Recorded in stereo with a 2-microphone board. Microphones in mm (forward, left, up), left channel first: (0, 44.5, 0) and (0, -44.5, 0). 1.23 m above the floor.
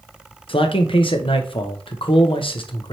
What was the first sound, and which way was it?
A man speaking, 65° left (ahead or behind).